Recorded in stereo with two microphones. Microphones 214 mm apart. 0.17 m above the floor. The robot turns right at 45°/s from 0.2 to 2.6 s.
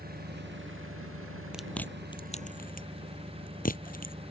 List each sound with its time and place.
0.0 s an engine running: 135° right; by 4.3 s 25° right
1.5 s chewing: 5° right (ahead or behind); by 4.1 s 40° left (ahead or behind)